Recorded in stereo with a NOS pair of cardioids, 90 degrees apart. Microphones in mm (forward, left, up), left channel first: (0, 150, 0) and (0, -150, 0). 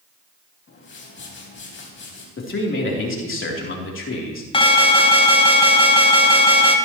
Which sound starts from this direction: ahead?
An alarm, at 4.5 s.